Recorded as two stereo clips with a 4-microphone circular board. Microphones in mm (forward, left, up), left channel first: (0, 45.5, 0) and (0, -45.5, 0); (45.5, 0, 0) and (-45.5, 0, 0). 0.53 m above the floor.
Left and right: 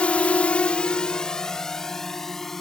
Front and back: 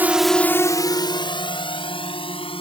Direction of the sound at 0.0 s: 145° left.